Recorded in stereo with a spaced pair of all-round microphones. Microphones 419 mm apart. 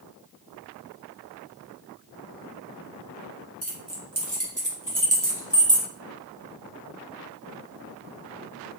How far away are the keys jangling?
About 1.1 m.